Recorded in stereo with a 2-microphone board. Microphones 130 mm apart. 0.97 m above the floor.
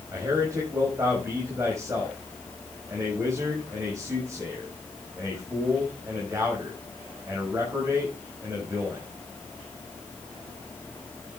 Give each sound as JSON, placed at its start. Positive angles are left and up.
{"t": 0.1, "sound": "a man speaking", "side_deg": -25, "distance_m": 5.5}